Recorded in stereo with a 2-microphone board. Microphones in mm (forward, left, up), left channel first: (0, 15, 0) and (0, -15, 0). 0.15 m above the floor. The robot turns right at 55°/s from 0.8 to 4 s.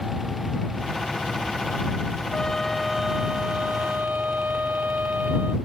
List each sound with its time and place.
2.3 s a trumpet: 155° left; by 5.5 s 115° right